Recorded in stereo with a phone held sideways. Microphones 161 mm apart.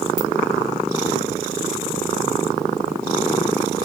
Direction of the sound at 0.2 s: 5° right (ahead or behind).